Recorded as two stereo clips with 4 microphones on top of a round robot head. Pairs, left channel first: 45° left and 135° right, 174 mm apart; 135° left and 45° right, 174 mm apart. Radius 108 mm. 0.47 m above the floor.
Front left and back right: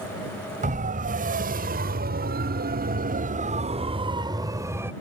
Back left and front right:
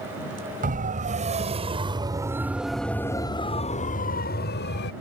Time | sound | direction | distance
0.6 | a siren | 90° right | ?